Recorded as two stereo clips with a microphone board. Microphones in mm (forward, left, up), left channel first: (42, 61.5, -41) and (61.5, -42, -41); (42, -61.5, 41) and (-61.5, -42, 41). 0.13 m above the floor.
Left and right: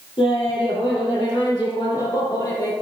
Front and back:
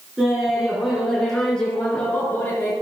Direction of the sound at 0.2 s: 85° left.